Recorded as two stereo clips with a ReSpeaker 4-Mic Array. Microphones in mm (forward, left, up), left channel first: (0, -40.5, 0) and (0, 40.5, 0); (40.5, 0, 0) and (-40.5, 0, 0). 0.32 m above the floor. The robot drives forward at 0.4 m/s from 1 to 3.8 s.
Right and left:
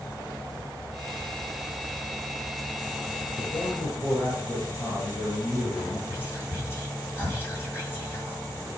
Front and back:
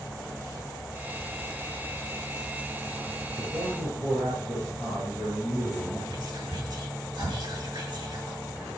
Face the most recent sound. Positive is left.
turn(degrees=-150)